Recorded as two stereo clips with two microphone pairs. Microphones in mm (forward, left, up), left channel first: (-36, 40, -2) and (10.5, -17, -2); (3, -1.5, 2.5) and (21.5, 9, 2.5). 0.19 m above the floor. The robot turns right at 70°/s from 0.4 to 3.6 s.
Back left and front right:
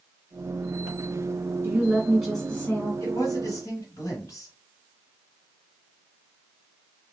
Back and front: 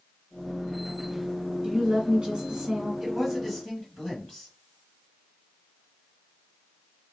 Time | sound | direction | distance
1.6 | a woman speaking | 10° right | 1.5 m
3.0 | a man speaking | 105° left | 1.6 m